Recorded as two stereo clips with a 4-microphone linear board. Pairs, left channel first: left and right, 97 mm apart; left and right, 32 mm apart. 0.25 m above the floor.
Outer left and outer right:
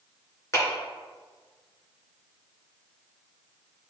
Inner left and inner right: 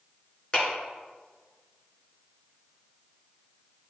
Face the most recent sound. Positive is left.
turn(degrees=30)  # may be behind; listen again after turning